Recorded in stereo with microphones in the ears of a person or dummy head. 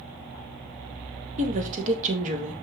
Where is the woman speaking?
35° right (ahead or behind), 2 m.